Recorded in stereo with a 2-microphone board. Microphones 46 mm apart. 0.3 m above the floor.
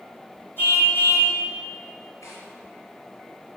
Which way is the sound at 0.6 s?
45° left (ahead or behind).